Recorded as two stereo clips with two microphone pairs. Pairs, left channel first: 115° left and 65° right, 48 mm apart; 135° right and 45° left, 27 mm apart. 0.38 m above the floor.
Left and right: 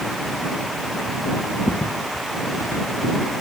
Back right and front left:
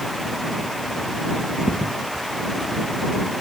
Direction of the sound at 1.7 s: 125° left.